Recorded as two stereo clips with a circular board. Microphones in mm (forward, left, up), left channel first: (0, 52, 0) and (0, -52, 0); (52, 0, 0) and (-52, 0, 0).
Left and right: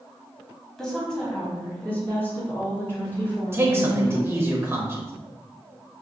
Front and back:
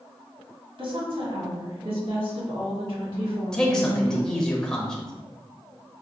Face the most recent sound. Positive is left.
turn(degrees=-75)